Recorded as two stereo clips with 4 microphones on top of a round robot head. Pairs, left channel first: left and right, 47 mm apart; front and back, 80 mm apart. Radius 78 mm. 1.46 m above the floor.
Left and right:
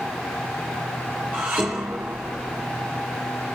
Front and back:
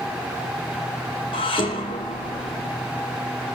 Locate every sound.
1.3 s dishes clattering: 25° right, 2.5 m